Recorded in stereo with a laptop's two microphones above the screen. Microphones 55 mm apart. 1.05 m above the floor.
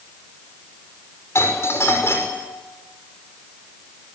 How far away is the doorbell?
About 5.5 m.